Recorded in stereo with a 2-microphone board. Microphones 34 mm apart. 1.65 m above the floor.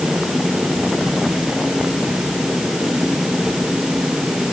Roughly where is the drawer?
No drawer in this recording.